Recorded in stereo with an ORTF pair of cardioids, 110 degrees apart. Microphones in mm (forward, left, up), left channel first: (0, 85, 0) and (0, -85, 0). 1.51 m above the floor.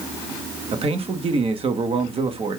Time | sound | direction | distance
0.7 | a man speaking | 35° right | 1.3 m